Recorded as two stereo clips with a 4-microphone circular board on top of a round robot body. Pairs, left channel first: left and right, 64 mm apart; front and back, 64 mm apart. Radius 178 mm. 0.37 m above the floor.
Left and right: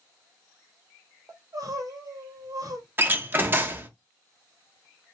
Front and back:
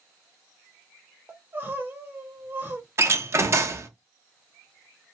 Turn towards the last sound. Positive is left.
turn(degrees=-145)